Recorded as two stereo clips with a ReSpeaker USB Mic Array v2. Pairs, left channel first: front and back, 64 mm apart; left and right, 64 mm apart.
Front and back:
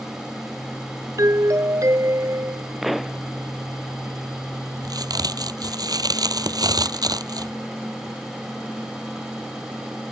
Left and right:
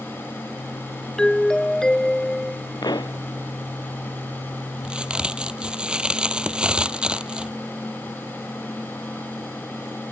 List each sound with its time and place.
1.2 s a doorbell: 170° left
2.8 s a pop: 95° left
4.8 s a crack: 165° right